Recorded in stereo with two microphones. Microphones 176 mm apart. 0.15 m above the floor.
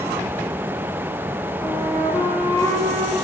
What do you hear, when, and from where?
1.6 s a flute: 15° left (ahead or behind), 7.5 m